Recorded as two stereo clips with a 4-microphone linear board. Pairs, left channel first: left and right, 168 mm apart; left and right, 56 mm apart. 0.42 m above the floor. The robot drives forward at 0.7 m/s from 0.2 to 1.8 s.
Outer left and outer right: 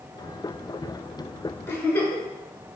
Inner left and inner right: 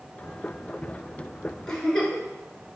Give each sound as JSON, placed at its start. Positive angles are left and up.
{"t": 1.7, "sound": "a giggle", "side_deg": 15, "distance_m": 0.8}